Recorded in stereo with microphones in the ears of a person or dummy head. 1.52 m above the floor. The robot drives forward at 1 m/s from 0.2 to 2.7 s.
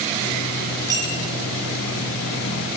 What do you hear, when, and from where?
0.9 s a clink: 20° right (ahead or behind), 9.5 m